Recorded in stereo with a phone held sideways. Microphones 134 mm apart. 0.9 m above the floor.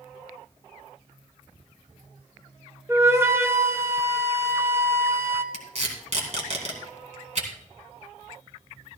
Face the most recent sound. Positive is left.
turn(degrees=-55)  # may be behind; listen again after turning